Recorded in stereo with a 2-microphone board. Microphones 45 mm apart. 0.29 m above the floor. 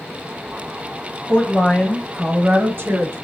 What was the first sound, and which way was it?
A woman speaking, 50° left (ahead or behind).